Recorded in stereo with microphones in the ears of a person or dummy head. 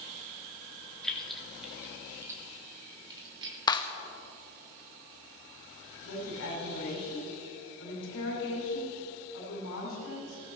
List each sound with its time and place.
1.0 s keys jangling: 5° left (ahead or behind), 2 m; by 3.6 s 30° right (ahead or behind), 3 m
3.7 s a clap: 20° left (ahead or behind), 0.8 m
6.0 s a woman speaking: 70° left (ahead or behind), 5 m